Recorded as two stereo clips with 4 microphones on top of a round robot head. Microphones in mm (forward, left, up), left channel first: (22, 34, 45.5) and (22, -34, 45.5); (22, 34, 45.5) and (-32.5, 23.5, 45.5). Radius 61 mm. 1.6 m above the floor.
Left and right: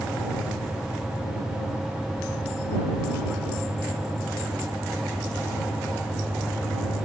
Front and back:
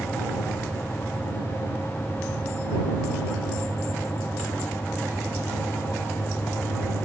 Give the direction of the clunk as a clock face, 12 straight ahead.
No clunk in this recording.